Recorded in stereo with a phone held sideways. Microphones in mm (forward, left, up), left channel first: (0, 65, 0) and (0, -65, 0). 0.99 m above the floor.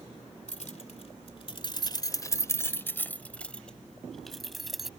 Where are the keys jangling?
70° left (ahead or behind); by 4.9 s centre (ahead or behind).